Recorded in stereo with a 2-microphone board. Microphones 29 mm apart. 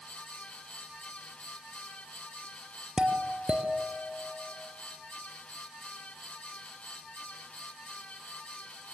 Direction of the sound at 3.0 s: 35° right (ahead or behind).